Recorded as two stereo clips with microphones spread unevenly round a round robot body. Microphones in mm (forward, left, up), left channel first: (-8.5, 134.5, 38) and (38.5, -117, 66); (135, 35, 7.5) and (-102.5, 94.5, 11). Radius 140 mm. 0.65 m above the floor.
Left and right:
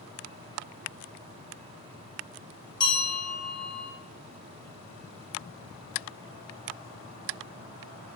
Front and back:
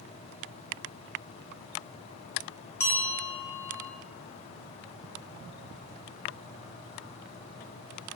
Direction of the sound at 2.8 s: 55° left.